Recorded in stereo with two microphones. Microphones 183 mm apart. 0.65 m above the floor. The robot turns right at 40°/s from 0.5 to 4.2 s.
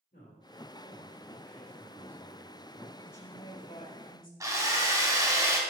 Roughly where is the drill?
Right.